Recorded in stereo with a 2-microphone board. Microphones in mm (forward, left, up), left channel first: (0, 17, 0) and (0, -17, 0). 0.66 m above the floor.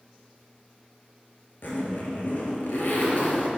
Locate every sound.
1.6 s a zipper: 65° left (ahead or behind), 2.5 m